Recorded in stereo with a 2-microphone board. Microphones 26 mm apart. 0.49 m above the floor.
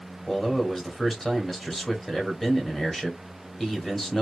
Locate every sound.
0.3 s a man speaking: 20° left (ahead or behind), 1.3 m